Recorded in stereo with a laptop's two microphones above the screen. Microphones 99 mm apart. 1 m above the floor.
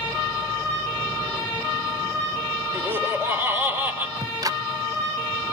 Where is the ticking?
35° right (ahead or behind), 0.7 m.